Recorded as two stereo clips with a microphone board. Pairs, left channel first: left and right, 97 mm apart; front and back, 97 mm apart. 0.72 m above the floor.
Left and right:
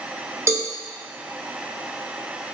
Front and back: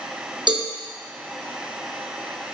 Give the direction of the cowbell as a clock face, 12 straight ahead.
5 o'clock.